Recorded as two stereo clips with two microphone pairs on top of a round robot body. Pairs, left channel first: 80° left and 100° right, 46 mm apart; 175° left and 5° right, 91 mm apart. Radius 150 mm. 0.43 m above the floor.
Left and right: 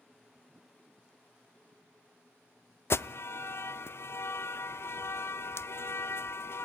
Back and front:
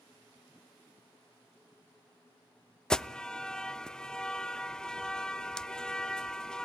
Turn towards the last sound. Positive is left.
turn(degrees=95)